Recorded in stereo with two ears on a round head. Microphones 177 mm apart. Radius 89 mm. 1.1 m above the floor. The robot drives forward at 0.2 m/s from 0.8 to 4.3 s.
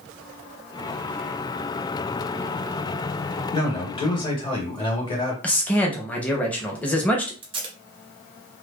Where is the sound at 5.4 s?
5° left (ahead or behind), 0.7 m.